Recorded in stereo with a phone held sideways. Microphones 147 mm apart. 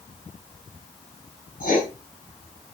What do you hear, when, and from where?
1.6 s writing: 70° left (ahead or behind), 6 m